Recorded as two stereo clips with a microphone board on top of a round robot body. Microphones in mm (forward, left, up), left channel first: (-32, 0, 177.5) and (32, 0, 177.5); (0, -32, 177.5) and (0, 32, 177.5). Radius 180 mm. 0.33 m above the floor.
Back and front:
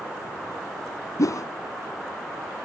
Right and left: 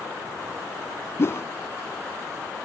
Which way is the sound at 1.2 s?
140° right.